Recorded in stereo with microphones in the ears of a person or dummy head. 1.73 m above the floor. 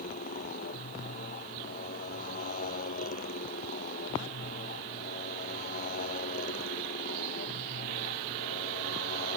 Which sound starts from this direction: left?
A motorcycle, at 0.0 s.